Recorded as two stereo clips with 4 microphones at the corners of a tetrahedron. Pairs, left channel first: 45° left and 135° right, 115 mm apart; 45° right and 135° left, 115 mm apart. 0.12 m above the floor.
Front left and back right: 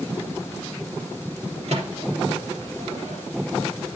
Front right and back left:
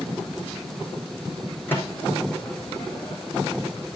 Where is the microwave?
115° right, 4 m.